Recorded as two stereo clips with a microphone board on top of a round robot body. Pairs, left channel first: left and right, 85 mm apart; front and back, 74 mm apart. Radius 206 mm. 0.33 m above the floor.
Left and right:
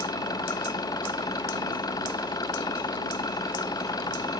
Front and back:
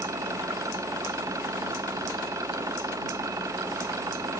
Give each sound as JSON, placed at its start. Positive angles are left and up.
{"t": 0.0, "sound": "an engine running", "azimuth_deg": 135}